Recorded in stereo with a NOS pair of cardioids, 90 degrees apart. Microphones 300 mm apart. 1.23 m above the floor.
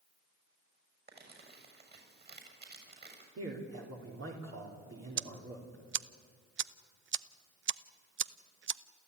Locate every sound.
1.1 s crumpling: 30° right, 7 m
3.4 s a man speaking: 45° right, 3.5 m
5.2 s ticking: 40° right, 0.7 m